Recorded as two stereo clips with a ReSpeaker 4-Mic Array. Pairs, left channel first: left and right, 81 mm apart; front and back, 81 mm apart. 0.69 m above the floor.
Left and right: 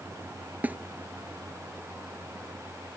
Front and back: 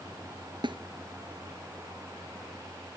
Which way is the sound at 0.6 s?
160° right.